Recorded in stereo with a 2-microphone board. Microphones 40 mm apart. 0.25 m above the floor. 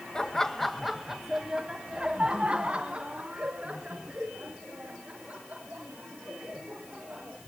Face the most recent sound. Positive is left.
turn(degrees=-35)  # may be behind; listen again after turning